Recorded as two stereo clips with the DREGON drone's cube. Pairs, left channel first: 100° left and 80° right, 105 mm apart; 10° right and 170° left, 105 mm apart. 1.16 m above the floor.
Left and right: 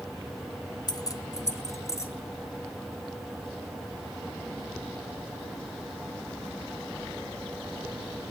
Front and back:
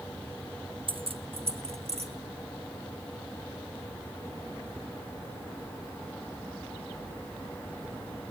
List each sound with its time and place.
0.9 s keys jangling: 145° left, 0.7 m; by 2.1 s 165° left, 1.8 m